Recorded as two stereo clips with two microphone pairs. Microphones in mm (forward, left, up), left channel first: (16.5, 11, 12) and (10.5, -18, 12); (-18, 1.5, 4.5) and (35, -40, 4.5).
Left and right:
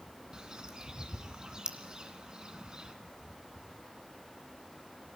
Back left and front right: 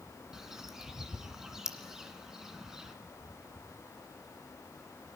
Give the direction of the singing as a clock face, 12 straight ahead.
I don't hear singing.